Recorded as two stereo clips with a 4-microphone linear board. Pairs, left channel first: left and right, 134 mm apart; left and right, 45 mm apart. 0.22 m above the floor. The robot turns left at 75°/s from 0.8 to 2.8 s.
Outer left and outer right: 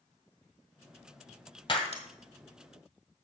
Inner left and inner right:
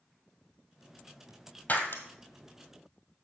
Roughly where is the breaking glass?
Left.